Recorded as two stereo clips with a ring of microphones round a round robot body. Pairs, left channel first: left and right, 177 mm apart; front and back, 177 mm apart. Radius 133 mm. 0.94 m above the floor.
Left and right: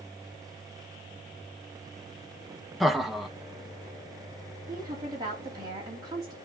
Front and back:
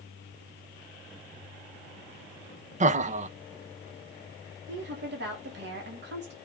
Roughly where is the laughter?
Behind.